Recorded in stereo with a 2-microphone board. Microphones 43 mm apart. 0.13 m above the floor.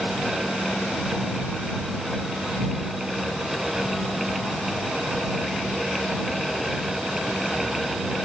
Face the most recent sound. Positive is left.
No sound to turn to.